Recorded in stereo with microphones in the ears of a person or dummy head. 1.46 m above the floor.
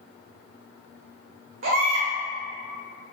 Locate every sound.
1.6 s a baby crying: 45° right (ahead or behind), 0.6 m